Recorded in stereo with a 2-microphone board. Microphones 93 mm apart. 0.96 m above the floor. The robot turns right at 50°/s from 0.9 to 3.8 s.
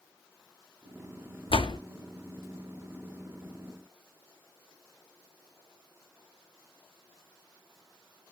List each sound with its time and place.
1.5 s a door slam: 70° left (ahead or behind), 0.5 m; by 1.8 s 55° left (ahead or behind), 0.5 m